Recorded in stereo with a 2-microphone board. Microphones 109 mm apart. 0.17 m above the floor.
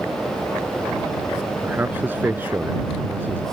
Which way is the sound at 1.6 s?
20° right (ahead or behind).